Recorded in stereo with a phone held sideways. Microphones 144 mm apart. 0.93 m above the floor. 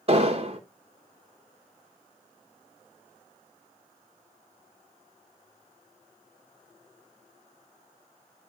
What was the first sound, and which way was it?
An explosion, 45° right (ahead or behind).